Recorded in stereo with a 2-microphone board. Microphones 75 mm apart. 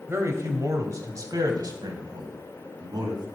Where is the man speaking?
35° right (ahead or behind), 1.6 m; by 3.3 s 65° right (ahead or behind), 2.5 m.